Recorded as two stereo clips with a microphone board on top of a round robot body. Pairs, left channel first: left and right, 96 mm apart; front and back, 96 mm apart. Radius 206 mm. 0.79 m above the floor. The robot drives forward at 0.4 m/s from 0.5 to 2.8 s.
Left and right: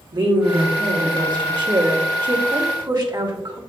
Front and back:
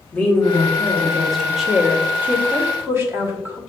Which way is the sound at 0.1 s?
70° right.